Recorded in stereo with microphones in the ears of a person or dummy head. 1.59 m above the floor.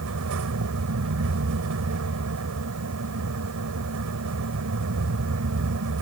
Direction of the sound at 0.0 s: 90° right.